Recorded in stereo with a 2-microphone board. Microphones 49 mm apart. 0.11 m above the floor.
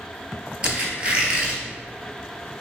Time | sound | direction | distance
0.6 | a squeak | 25° right (ahead or behind) | 0.7 m